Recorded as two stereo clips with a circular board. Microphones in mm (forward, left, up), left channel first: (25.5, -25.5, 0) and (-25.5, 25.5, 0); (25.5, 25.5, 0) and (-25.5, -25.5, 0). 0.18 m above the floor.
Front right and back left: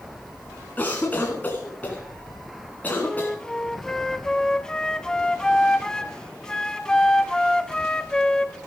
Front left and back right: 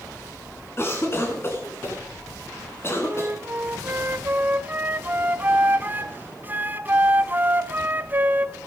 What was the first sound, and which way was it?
A cough, 10° left.